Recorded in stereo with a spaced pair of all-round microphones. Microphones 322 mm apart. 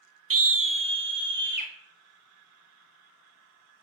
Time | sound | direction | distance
0.3 | a scream | 90° right | 0.5 m